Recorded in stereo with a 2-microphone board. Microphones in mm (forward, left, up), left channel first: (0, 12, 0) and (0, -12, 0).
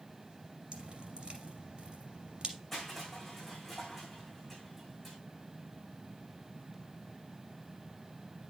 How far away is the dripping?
About 2.5 m.